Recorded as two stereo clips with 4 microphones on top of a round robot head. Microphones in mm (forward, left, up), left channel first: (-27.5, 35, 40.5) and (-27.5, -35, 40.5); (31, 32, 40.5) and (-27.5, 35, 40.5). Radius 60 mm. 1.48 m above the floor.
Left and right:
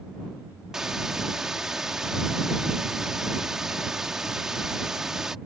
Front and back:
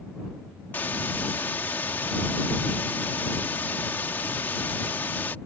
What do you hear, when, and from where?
0.7 s a hiss: 10° right